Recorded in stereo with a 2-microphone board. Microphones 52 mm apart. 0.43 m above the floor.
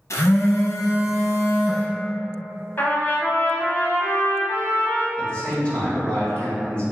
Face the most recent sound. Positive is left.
turn(degrees=25)  # may be behind; listen again after turning